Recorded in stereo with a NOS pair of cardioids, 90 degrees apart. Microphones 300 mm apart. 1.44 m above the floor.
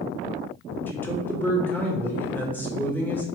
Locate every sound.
0.9 s a man speaking: 5° left, 1.6 m